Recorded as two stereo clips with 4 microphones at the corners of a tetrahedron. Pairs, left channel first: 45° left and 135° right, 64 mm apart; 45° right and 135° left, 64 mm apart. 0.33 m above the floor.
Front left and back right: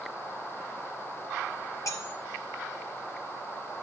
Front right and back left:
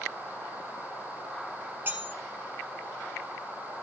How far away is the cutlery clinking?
About 1.7 m.